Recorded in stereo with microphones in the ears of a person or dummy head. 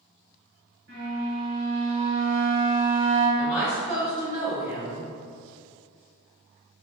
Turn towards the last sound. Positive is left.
turn(degrees=0)  # may be behind; listen again after turning